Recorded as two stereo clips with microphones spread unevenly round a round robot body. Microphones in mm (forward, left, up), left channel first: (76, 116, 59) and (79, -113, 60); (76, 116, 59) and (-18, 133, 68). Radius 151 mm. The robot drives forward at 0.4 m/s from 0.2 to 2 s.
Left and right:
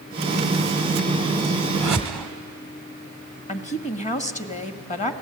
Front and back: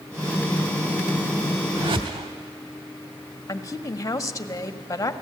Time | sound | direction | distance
1.8 | a whoosh | 175° right | 0.8 m
3.5 | a woman speaking | 35° left | 1.7 m